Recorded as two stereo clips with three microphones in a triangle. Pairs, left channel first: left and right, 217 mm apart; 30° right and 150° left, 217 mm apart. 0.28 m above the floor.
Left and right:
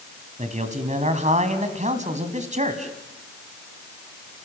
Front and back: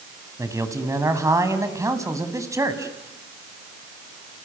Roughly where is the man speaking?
Behind right.